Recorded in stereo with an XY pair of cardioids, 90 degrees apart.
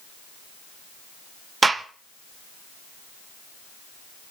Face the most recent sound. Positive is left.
turn(degrees=-30)